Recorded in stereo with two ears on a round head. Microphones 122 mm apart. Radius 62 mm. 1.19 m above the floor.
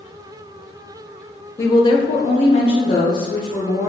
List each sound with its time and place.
1.6 s a woman speaking: 20° left (ahead or behind), 0.6 m; by 3.9 s 35° left (ahead or behind), 1.0 m